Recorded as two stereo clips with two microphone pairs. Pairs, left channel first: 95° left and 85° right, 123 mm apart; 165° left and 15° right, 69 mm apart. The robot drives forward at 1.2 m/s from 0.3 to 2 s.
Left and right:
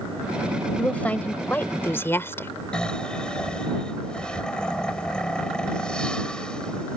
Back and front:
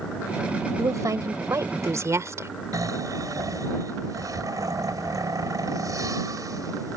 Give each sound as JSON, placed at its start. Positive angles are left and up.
{"t": 0.8, "sound": "a woman speaking", "azimuth_deg": 15}
{"t": 2.7, "sound": "snoring", "azimuth_deg": 10}